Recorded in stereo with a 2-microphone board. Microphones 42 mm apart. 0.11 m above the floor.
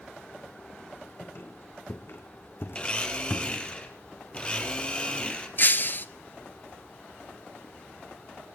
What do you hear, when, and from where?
1.2 s a squeak: 55° left (ahead or behind), 3 m
2.8 s a blender: 25° left (ahead or behind), 3 m
5.6 s breaking glass: 45° left (ahead or behind), 0.9 m